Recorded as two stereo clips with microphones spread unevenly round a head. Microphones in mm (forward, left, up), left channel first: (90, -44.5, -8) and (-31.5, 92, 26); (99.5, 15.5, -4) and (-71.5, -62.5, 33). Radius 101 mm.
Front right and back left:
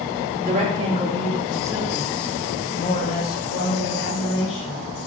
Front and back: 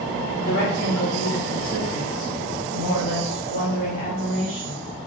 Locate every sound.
0.4 s a woman speaking: 80° left, 2.5 m; by 4.8 s 40° right, 3 m